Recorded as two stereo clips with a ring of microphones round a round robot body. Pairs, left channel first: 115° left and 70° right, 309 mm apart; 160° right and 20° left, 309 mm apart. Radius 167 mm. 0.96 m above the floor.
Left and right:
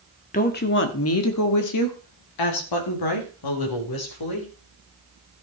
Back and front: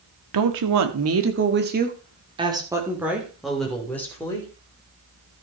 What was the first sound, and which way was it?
A woman speaking, 45° left.